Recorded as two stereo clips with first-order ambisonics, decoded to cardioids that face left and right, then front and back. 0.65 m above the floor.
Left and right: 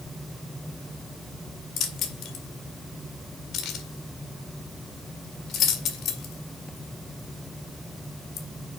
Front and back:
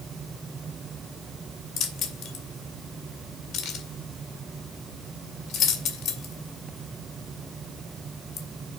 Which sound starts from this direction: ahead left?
Keys jangling, at 1.8 s.